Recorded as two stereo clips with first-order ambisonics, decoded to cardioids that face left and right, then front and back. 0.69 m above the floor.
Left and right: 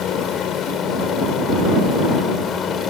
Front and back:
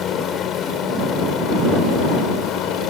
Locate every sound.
0.0 s a helicopter: 45° left; by 2.9 s 35° left